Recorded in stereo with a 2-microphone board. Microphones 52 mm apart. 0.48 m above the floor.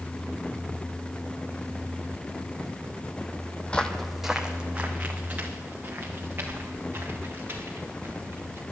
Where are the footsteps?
25° left (ahead or behind), 1.0 m; by 8.6 s 45° right (ahead or behind), 6 m.